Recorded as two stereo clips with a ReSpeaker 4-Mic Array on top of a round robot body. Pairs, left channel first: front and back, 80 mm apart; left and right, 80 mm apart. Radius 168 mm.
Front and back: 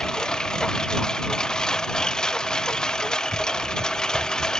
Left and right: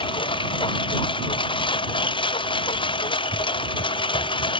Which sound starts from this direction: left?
A lawn mower, at 0.0 s.